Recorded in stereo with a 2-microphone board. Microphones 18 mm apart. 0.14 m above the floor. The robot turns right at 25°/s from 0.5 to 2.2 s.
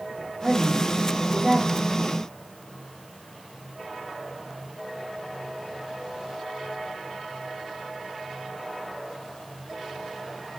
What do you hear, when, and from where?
0.4 s a woman speaking: 20° right, 4 m; by 1.9 s 15° left, 4 m